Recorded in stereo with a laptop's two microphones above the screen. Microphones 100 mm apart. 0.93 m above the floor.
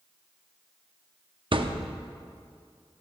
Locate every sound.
1.5 s a thud: 55° right (ahead or behind), 0.7 m